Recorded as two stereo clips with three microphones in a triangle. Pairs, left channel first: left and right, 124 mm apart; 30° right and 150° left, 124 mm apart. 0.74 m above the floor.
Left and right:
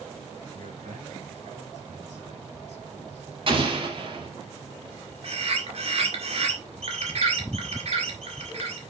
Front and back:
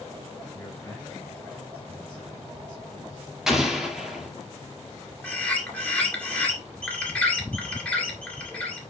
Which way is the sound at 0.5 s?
110° right.